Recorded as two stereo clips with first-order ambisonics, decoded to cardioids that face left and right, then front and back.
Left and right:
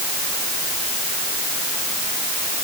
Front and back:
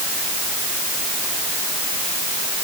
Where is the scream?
No scream in this recording.